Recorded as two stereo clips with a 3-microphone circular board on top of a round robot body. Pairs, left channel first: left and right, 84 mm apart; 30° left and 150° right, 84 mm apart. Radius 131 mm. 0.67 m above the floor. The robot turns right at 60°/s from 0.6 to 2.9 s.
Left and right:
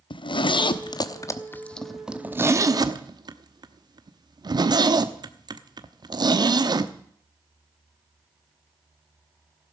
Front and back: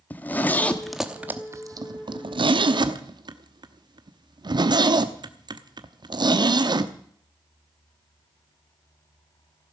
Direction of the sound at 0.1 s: 100° left.